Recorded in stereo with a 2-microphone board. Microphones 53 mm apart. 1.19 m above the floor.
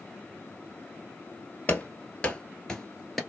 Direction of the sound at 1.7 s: 30° left (ahead or behind).